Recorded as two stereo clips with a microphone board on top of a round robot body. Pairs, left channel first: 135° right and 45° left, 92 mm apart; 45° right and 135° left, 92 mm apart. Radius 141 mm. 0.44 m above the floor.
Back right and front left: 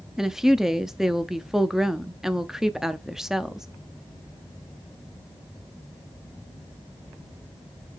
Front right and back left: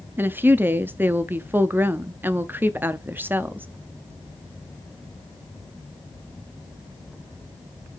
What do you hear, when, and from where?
0.2 s a woman speaking: 125° left, 0.8 m